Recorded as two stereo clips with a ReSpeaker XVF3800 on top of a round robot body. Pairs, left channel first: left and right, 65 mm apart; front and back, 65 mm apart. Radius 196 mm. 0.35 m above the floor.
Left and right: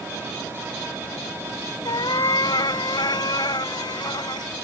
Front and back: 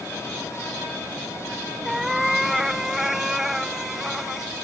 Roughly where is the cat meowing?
Left.